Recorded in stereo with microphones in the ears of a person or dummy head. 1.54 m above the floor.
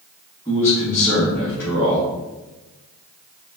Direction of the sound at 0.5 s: 15° left (ahead or behind).